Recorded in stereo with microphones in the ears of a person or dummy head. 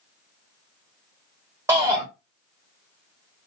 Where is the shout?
15° right (ahead or behind), 1.3 m.